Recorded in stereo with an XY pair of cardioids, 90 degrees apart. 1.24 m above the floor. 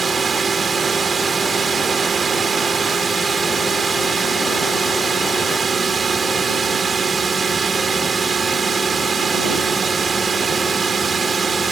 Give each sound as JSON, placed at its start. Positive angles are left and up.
{"t": 0.0, "sound": "a drone", "azimuth_deg": -40}